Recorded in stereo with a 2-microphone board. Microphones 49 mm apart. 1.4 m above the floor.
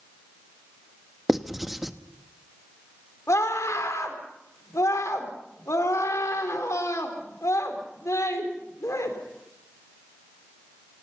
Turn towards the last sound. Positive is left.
turn(degrees=75)  # may be behind; listen again after turning